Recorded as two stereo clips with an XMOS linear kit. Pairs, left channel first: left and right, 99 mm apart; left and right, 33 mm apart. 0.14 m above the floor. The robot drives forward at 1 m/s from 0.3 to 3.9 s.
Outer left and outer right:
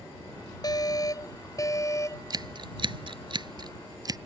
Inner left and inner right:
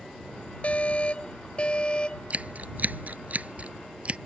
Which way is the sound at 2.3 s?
45° right (ahead or behind).